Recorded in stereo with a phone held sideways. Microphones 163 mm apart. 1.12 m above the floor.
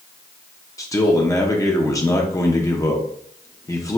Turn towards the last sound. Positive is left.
turn(degrees=20)  # may be behind; listen again after turning